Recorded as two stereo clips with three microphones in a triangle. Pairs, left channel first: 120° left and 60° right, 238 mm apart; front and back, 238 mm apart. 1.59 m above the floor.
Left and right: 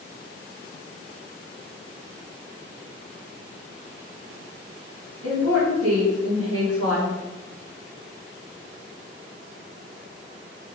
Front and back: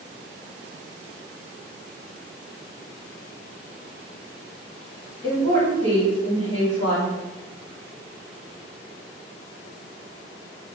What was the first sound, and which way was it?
A woman speaking, 70° right.